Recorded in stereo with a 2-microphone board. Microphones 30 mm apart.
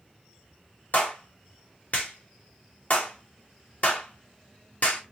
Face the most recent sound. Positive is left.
turn(degrees=60)  # may be behind; listen again after turning